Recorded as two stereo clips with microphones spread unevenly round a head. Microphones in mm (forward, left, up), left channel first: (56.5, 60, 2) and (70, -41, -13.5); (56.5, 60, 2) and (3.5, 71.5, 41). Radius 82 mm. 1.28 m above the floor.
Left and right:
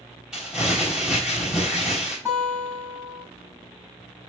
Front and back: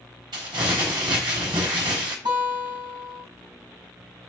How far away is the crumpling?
About 4 m.